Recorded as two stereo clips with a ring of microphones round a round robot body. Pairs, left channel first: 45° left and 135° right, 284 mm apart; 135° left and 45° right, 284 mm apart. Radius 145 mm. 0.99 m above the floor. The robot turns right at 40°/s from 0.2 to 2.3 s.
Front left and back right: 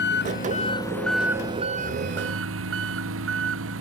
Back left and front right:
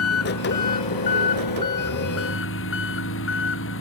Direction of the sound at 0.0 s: 95° left.